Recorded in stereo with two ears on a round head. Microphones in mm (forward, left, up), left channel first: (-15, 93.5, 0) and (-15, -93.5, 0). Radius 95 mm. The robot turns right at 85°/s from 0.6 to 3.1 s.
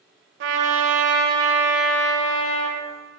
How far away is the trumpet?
About 1.3 m.